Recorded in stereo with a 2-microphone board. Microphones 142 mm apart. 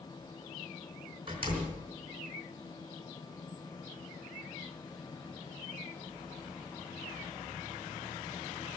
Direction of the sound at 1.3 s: 35° right (ahead or behind).